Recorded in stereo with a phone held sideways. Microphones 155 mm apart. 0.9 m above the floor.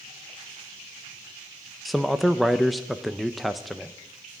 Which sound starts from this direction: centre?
A man speaking, at 1.9 s.